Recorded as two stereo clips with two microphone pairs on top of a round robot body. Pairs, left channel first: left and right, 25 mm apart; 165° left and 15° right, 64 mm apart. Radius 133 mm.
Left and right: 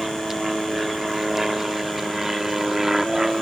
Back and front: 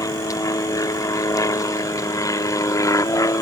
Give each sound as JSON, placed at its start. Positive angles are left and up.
{"t": 0.0, "sound": "an aircraft", "azimuth_deg": -170}